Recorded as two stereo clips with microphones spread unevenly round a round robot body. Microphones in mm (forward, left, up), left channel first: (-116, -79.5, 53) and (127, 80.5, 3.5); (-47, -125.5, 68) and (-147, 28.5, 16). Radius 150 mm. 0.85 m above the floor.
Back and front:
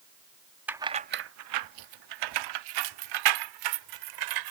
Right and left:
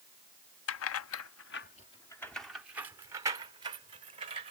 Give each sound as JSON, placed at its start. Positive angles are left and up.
{"t": 0.7, "sound": "keys jangling", "azimuth_deg": -55}